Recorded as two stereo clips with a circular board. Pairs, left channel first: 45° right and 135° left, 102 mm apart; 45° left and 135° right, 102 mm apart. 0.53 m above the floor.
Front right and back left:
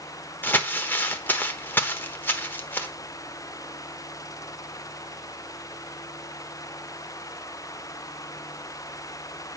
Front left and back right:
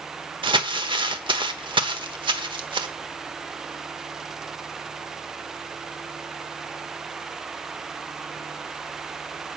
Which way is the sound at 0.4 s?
115° right.